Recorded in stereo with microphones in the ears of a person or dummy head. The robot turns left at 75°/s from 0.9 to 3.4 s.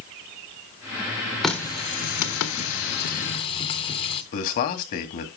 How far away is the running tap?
About 1.1 m.